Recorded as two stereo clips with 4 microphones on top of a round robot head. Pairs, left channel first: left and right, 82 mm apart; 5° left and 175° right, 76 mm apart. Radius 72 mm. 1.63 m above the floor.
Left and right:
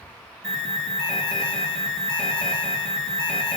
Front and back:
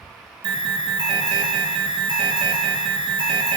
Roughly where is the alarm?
Behind.